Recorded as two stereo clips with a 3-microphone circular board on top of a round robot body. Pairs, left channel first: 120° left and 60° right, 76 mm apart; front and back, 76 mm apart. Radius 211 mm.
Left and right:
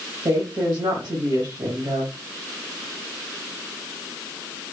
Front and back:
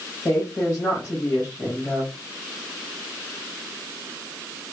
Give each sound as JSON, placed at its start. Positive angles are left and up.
{"t": 0.2, "sound": "a woman speaking", "azimuth_deg": -50, "distance_m": 1.7}